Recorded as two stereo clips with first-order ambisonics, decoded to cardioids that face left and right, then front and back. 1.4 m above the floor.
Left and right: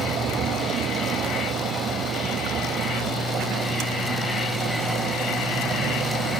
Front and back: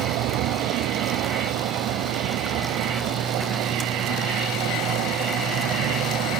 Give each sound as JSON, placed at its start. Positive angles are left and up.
{"t": 0.0, "sound": "a vehicle", "azimuth_deg": -150}